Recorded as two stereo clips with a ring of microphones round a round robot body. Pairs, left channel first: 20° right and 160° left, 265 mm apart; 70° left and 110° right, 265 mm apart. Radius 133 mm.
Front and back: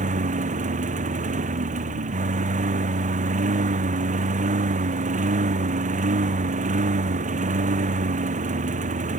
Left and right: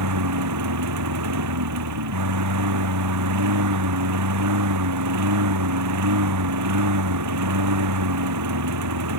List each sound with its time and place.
0.0 s a lawn mower: 140° right